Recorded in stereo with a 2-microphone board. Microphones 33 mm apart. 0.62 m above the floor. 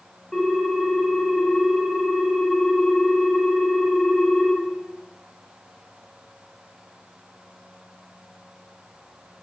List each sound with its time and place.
0.3 s a ringtone: 15° left (ahead or behind), 1.7 m